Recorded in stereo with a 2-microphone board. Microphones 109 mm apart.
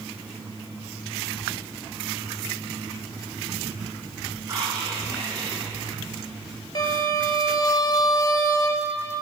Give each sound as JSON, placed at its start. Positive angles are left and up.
{"t": 4.4, "sound": "whispering", "side_deg": -30, "distance_m": 3.0}
{"t": 6.8, "sound": "a violin", "side_deg": 40, "distance_m": 1.0}